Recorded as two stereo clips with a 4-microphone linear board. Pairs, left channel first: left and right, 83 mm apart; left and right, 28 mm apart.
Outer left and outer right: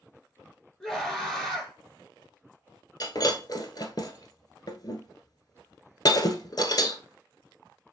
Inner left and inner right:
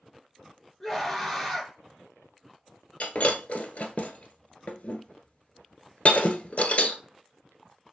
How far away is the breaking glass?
About 1.0 m.